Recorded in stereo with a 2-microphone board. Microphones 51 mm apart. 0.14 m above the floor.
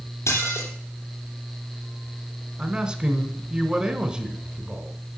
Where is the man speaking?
20° right (ahead or behind), 1.1 m.